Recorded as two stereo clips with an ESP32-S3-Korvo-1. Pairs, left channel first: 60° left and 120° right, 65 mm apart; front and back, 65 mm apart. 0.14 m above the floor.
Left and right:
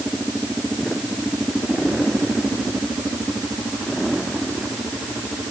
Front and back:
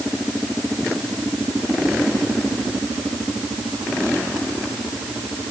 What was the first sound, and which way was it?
Only background noise.